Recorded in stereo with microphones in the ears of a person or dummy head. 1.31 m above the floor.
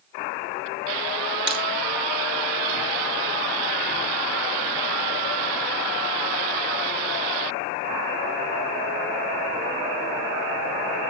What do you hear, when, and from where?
1.5 s breaking glass: 60° right (ahead or behind), 8 m